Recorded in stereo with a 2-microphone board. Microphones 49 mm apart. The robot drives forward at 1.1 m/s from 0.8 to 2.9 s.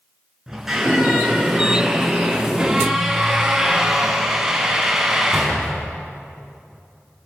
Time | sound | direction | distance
0.5 | a squeak | 5° right (ahead or behind) | 7 m